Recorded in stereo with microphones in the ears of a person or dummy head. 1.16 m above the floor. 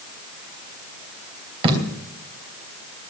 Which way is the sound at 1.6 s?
30° right (ahead or behind).